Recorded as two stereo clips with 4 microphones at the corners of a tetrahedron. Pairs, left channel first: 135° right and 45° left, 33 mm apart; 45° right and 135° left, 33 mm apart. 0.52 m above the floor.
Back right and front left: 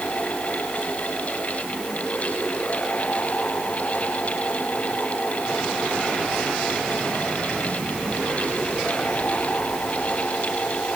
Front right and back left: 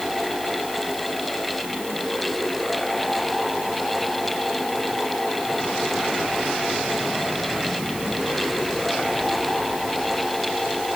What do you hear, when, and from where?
Only background noise.